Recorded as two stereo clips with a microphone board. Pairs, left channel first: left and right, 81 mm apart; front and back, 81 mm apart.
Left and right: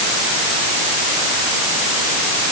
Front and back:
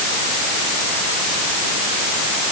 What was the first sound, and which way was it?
Only background noise.